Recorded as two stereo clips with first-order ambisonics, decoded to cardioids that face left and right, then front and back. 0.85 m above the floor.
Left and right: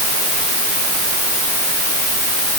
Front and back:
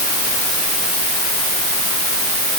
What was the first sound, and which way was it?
Only background noise.